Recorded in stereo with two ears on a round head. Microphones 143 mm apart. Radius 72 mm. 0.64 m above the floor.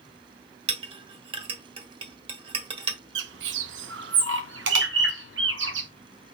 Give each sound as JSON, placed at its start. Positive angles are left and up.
{"t": 0.7, "sound": "a clink", "side_deg": -35, "distance_m": 1.4}
{"t": 3.1, "sound": "a bird", "side_deg": -85, "distance_m": 0.6}